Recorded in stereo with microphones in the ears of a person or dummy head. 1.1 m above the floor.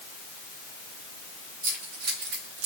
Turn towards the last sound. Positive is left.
turn(degrees=-60)  # may be behind; listen again after turning